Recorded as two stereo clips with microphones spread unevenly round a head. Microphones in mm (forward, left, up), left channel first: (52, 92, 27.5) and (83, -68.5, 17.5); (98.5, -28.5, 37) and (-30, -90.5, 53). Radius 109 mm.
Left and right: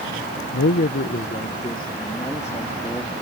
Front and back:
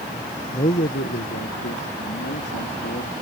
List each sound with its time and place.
0.5 s a man speaking: 85° left; by 3.1 s 25° left